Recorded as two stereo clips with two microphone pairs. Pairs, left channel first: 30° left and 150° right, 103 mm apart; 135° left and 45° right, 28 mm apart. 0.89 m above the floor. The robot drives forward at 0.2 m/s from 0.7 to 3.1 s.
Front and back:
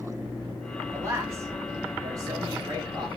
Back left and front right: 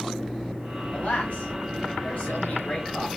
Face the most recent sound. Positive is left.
turn(degrees=160)